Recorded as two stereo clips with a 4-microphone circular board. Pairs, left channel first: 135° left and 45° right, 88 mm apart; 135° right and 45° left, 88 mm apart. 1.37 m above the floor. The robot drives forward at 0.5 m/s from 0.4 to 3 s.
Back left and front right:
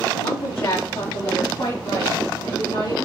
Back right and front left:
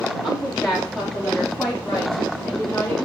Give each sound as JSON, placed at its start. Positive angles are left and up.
{"t": 0.2, "sound": "a woman speaking", "azimuth_deg": 125, "distance_m": 1.8}